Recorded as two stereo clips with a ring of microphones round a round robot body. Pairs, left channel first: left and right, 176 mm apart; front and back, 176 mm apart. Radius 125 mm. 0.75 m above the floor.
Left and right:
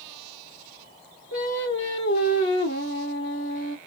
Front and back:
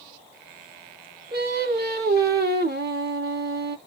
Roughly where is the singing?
Behind left.